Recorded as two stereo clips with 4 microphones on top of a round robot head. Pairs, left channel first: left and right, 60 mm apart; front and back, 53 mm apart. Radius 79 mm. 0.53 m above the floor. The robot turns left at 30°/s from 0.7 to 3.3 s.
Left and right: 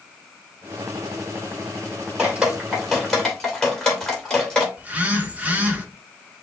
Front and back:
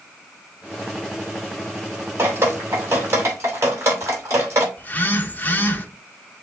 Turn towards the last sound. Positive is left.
turn(degrees=-40)